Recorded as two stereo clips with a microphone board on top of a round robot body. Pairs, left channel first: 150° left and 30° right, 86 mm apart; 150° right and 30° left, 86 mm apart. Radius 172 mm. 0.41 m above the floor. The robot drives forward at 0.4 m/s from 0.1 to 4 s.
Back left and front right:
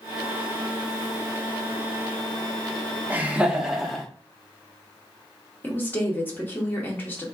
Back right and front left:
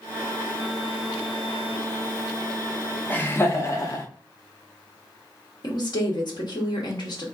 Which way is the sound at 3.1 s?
90° right.